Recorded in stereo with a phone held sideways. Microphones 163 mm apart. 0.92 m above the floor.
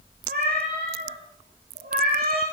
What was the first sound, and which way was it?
A cat meowing, 80° right.